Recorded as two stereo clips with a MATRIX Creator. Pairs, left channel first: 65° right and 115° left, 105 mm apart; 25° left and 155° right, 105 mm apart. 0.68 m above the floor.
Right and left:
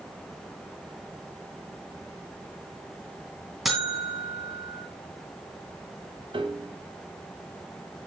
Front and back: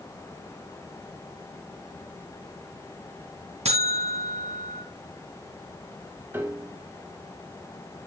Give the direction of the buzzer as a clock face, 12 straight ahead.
5 o'clock.